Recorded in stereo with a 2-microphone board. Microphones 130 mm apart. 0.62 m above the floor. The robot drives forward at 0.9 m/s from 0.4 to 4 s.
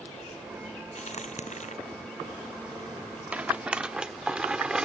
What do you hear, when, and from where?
0.9 s a crack: 60° left (ahead or behind); by 1.8 s 65° left (ahead or behind)
3.3 s a rattle: 10° right (ahead or behind); by 4.9 s 5° right (ahead or behind)